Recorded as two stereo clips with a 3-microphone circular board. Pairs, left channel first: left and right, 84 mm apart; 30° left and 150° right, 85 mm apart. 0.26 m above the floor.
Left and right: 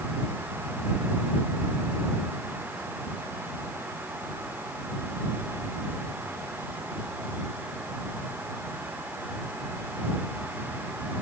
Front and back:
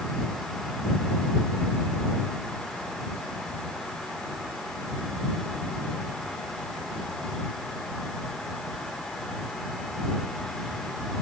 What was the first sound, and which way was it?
Only background noise.